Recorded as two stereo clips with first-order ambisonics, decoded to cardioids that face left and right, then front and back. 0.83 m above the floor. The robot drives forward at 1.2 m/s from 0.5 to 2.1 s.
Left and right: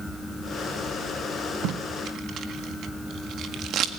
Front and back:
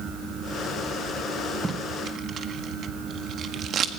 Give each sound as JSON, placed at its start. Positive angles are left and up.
{"t": 1.6, "sound": "tape being pulled", "azimuth_deg": -110, "distance_m": 1.4}